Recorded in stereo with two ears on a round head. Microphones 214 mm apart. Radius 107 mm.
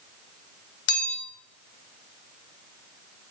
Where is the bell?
50° left (ahead or behind), 1.6 m.